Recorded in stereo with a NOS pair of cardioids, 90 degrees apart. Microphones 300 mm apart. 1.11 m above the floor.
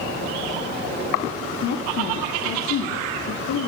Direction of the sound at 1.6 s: 65° left.